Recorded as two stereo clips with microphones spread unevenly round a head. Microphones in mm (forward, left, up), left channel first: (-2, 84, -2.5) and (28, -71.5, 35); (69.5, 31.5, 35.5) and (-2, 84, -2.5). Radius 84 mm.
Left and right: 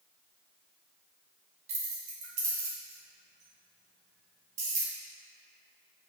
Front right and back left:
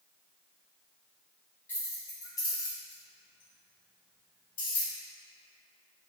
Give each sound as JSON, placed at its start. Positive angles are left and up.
{"t": 1.7, "sound": "keys jangling", "azimuth_deg": -80, "distance_m": 1.2}